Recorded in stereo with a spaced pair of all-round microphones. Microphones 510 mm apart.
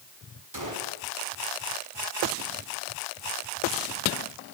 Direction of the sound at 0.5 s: 35° right (ahead or behind).